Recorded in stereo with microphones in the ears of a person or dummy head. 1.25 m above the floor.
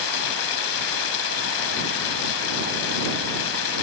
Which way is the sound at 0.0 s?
70° left (ahead or behind).